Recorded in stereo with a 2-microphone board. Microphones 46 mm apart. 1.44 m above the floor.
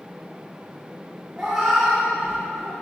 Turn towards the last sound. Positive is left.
turn(degrees=-10)  # may be behind; listen again after turning